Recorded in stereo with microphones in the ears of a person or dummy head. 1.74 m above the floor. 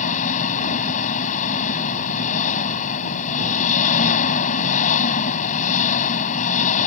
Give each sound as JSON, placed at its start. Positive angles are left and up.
{"t": 0.0, "sound": "an engine running", "side_deg": 45}